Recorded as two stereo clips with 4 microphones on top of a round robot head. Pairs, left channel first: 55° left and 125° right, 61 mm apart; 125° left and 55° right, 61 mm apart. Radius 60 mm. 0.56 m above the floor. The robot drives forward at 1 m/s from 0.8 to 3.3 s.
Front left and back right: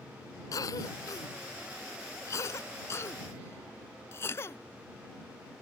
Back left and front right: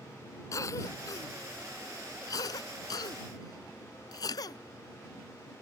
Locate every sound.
0.5 s a cough: 85° left; by 4.6 s 105° left